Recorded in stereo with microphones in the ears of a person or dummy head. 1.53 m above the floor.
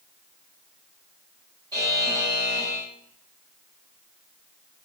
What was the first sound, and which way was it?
A buzzer, 25° right (ahead or behind).